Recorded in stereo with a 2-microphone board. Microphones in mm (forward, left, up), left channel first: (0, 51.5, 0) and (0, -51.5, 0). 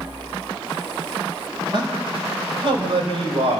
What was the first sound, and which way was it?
A man speaking, 50° right (ahead or behind).